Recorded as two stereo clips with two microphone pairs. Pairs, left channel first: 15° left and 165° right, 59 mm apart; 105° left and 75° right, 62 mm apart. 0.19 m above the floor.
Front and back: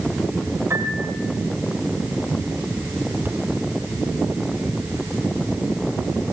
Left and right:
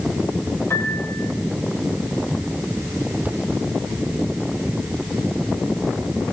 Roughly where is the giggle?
I don't hear a giggle.